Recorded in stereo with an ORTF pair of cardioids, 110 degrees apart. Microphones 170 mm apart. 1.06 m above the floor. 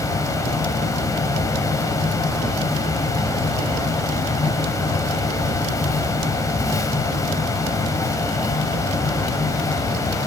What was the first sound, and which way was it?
A fan, 20° left.